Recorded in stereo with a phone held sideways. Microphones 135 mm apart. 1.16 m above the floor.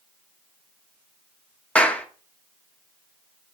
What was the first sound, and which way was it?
A clap, 10° left (ahead or behind).